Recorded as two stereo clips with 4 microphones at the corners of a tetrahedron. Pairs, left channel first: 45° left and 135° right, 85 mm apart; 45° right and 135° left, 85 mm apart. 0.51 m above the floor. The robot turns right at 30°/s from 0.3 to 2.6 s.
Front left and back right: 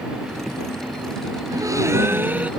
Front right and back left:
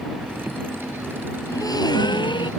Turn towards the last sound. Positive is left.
turn(degrees=-60)